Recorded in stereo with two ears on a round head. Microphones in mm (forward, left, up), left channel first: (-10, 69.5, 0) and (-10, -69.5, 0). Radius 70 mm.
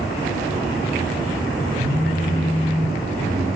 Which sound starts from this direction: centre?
A phone buzzing, at 1.8 s.